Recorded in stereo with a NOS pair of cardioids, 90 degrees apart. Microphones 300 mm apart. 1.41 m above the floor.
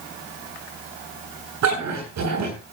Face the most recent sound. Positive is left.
turn(degrees=-65)